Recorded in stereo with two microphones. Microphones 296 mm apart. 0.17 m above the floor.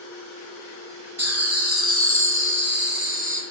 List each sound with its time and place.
1.2 s laughter: 55° right (ahead or behind), 3 m; by 3.4 s 25° right (ahead or behind), 1.9 m